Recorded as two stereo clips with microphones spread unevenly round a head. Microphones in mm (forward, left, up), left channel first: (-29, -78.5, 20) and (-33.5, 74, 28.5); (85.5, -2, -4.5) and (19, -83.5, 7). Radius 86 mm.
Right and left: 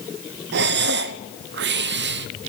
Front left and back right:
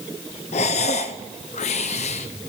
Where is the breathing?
95° left, 0.8 m.